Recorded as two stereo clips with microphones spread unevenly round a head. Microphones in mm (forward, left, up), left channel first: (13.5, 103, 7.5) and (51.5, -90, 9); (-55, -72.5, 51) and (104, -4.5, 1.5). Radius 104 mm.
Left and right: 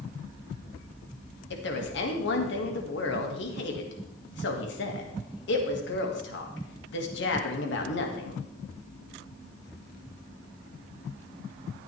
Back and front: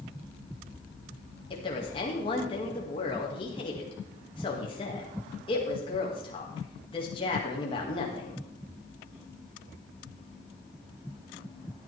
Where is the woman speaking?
135° left, 2.0 m.